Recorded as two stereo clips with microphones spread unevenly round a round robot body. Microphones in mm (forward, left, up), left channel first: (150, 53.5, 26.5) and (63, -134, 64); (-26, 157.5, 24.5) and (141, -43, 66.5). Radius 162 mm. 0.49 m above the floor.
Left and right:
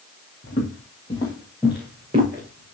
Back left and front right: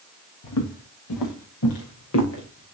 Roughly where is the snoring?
I don't hear snoring.